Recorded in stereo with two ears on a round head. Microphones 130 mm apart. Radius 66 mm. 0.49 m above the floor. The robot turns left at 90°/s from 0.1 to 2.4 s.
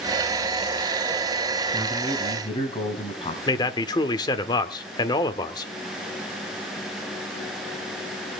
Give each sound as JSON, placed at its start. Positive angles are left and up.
{"t": 1.7, "sound": "a man speaking", "azimuth_deg": -160, "distance_m": 4.0}
{"t": 3.5, "sound": "a man speaking", "side_deg": 30, "distance_m": 1.2}